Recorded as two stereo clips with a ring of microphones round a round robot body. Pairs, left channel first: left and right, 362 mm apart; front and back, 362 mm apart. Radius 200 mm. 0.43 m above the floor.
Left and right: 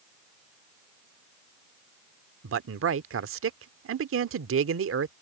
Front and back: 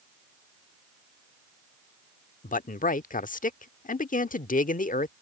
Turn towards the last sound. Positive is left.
turn(degrees=-55)